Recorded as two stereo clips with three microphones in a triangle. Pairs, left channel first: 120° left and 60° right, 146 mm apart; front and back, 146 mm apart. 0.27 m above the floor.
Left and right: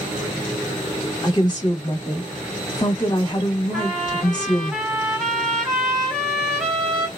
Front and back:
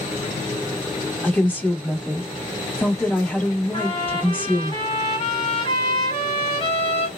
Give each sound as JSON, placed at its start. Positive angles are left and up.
{"t": 1.2, "sound": "a woman speaking", "azimuth_deg": 75, "distance_m": 1.3}
{"t": 3.7, "sound": "a trumpet", "azimuth_deg": 30, "distance_m": 1.0}